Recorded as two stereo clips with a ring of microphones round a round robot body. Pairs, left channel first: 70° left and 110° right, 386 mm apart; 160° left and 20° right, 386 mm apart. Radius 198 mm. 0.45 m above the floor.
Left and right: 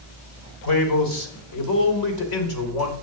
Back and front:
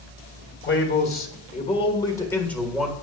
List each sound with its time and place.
0.6 s a man speaking: 100° left, 2.5 m; by 2.9 s 65° left, 2.5 m